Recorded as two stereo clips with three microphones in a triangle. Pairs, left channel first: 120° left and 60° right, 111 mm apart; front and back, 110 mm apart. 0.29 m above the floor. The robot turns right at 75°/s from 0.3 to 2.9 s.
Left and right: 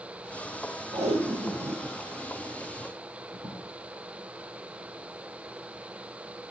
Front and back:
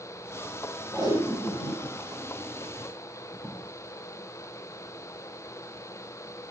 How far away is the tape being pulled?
About 4.5 m.